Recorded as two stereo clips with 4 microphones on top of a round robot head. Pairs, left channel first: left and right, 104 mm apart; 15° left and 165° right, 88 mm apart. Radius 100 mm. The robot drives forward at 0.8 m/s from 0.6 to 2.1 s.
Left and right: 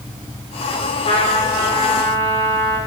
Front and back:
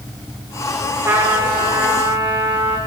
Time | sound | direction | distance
1.1 | a trumpet | 130° left | 9.5 m